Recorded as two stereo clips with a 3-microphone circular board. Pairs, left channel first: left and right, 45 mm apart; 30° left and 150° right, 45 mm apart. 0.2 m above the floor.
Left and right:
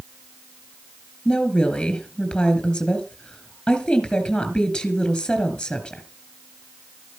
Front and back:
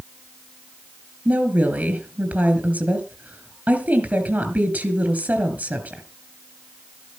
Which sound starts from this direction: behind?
A woman speaking, at 1.2 s.